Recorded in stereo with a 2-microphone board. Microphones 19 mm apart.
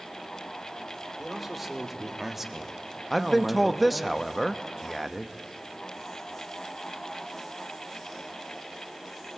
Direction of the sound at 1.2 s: 10° right (ahead or behind).